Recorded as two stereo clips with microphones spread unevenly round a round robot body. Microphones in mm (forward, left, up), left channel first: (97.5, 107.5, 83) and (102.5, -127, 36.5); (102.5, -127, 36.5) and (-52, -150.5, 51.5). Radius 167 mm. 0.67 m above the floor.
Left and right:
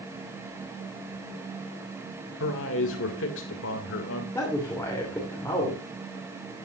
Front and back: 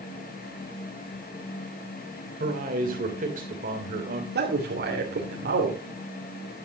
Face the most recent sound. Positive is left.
turn(degrees=175)